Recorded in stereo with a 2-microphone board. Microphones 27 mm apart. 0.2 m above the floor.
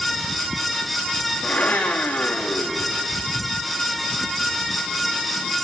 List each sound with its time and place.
1.4 s a blender: 85° left, 5 m